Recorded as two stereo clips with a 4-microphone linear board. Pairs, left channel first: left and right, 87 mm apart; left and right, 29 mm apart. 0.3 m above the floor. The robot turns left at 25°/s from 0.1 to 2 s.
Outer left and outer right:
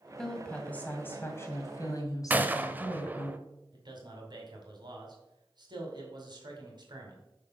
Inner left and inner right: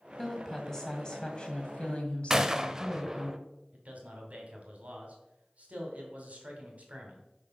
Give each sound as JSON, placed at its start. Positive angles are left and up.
{"t": 0.2, "sound": "a woman speaking", "azimuth_deg": 175, "distance_m": 1.9}
{"t": 2.3, "sound": "a gunshot", "side_deg": -20, "distance_m": 0.6}
{"t": 3.7, "sound": "a man speaking", "side_deg": -55, "distance_m": 2.5}